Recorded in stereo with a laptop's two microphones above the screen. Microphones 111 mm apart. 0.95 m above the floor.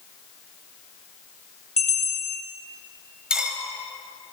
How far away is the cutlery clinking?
About 2.5 m.